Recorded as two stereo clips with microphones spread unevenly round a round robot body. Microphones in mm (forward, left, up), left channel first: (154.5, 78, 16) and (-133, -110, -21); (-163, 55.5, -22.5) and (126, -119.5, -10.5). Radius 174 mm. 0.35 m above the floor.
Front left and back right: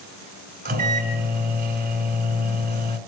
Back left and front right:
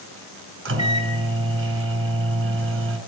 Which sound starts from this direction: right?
A microwave, at 0.7 s.